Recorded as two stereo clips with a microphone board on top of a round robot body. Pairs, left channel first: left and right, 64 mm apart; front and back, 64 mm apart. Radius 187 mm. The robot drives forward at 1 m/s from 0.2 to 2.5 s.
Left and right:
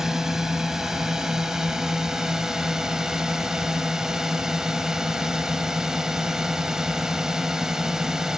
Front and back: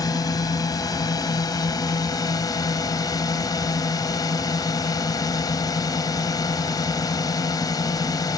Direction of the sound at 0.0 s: 10° right.